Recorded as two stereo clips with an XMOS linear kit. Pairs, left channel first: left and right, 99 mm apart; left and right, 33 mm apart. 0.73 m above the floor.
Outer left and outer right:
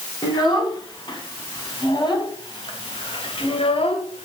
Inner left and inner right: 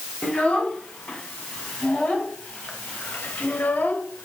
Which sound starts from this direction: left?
A child speaking, at 0.2 s.